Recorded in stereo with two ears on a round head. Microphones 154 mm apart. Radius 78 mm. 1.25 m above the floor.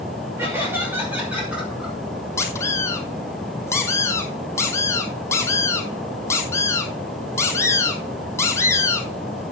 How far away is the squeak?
About 2 m.